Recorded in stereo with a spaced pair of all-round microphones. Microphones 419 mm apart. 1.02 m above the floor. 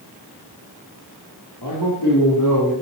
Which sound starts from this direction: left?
A man speaking, at 1.6 s.